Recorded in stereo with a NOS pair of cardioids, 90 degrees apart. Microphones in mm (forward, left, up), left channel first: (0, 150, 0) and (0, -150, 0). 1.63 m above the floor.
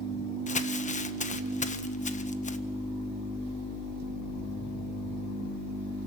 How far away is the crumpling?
About 1.3 m.